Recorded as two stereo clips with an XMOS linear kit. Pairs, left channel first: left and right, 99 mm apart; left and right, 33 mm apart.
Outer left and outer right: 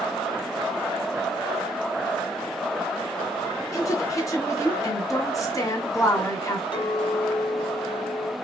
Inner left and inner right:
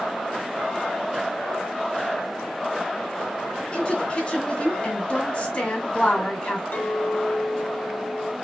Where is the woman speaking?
35° left (ahead or behind), 1.9 m.